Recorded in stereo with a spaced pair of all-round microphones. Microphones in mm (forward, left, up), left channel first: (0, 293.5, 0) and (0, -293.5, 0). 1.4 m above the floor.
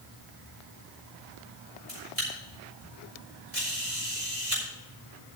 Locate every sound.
1.9 s a camera shutter: 80° right, 5 m